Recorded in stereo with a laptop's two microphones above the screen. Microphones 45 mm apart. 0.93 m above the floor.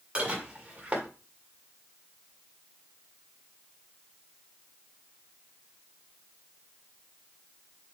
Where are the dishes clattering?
25° right (ahead or behind), 1.9 m.